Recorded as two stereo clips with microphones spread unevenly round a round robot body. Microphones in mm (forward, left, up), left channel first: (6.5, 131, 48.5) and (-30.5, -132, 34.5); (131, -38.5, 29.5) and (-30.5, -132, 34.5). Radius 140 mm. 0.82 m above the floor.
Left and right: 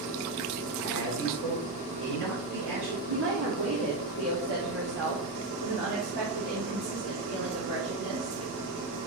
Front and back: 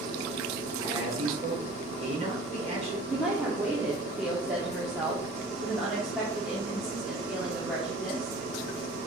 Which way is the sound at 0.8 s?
95° right.